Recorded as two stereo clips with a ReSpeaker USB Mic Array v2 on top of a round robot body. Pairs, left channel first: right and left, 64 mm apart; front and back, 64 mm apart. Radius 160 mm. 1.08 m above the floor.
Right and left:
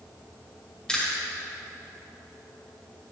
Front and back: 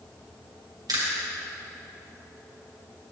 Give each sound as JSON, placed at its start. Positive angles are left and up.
{"t": 0.9, "sound": "chewing", "azimuth_deg": -170, "distance_m": 2.0}